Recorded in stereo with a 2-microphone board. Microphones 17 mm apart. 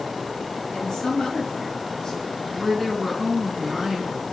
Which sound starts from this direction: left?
A woman speaking, at 0.7 s.